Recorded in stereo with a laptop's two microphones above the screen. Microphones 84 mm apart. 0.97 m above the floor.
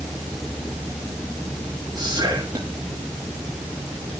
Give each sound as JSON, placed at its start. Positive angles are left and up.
{"t": 1.9, "sound": "whispering", "side_deg": -55, "distance_m": 1.8}